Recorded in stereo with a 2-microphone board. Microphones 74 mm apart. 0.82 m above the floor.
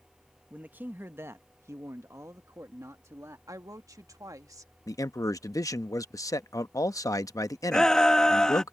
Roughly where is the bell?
No bell in this recording.